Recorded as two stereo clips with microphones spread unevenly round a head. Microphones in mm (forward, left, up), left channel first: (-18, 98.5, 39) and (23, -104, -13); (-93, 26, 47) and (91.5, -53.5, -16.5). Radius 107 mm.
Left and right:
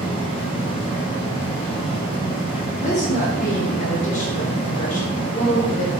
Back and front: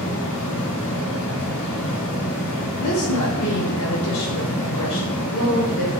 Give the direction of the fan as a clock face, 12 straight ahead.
7 o'clock.